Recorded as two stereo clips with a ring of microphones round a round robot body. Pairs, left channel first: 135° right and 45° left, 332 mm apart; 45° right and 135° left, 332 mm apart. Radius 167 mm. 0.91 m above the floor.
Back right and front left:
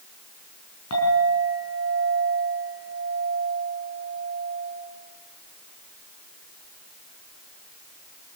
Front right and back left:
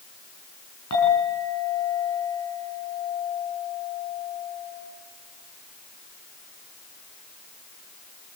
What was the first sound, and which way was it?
A clink, 90° right.